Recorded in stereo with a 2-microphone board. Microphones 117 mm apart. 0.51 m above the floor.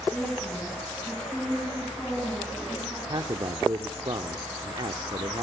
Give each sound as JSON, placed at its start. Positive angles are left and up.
{"t": 0.1, "sound": "a woman speaking", "side_deg": 10, "distance_m": 4.5}
{"t": 3.1, "sound": "a man speaking", "side_deg": -45, "distance_m": 0.9}